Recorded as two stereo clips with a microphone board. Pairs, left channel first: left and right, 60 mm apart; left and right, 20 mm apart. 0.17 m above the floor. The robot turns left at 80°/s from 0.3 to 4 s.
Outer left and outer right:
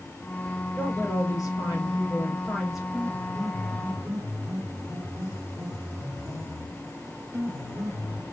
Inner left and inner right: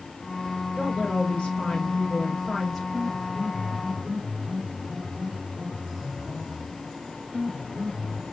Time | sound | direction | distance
0.8 | a woman speaking | 155° left | 3.5 m
2.9 | a piano | 15° right | 3.5 m